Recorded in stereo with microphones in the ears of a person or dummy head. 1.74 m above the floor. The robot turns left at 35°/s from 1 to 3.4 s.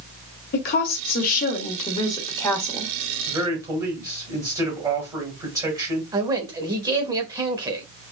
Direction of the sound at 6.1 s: 20° right (ahead or behind).